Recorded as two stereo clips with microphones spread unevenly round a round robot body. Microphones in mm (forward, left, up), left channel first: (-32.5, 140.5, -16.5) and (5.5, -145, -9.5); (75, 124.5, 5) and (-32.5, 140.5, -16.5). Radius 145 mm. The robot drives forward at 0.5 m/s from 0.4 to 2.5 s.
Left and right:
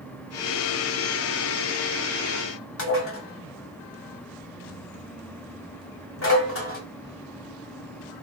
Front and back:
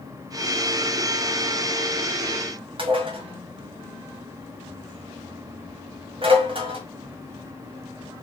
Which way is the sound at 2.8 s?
145° left.